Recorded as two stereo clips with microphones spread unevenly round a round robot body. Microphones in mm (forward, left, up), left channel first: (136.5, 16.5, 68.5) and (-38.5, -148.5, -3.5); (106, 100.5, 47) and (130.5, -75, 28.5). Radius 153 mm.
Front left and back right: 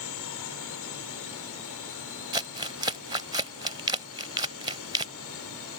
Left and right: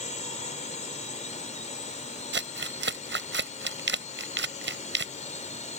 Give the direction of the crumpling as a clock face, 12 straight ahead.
2 o'clock.